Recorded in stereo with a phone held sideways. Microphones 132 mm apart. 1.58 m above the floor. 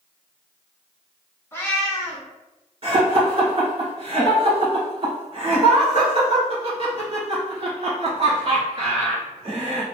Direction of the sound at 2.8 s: 45° right (ahead or behind).